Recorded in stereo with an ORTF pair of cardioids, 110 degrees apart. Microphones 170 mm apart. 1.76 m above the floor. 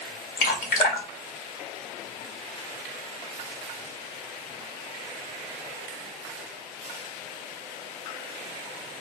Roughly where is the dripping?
Ahead left.